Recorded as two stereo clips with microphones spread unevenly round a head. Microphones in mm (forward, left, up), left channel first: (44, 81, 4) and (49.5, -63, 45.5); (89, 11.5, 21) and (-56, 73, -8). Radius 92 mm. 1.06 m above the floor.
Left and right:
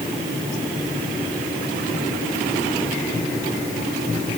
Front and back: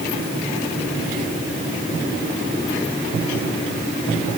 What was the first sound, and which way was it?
Only background noise.